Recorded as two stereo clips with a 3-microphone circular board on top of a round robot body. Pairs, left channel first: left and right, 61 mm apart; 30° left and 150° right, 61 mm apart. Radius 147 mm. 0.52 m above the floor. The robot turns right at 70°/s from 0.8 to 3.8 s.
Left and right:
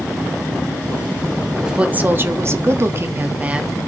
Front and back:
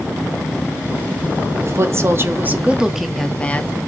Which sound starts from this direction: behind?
A woman speaking, at 1.6 s.